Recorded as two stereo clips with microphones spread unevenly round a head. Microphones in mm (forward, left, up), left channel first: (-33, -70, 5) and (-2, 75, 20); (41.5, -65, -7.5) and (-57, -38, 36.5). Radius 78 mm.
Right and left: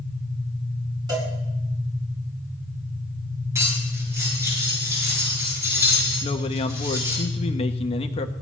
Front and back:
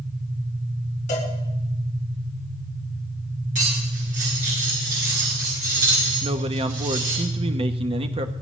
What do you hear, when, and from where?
1.1 s a cowbell: 10° left, 6 m
3.5 s cutlery clinking: 150° left, 9.5 m
6.2 s a man speaking: 155° right, 1.0 m